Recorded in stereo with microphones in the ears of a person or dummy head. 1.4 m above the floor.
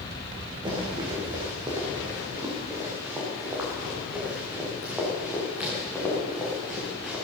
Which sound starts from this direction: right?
Running footsteps, at 0.7 s.